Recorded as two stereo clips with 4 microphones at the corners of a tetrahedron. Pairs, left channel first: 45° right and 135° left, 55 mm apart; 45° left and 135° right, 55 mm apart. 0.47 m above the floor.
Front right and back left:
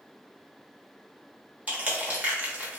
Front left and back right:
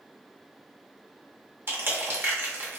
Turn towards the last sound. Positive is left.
turn(degrees=-170)